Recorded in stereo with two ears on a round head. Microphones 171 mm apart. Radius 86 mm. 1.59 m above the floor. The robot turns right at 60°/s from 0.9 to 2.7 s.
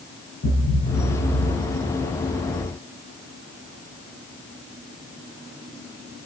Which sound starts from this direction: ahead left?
A thud, at 0.4 s.